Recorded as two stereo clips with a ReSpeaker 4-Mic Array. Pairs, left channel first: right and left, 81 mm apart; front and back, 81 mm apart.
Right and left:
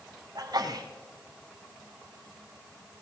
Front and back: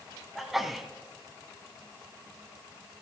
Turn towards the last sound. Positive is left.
turn(degrees=95)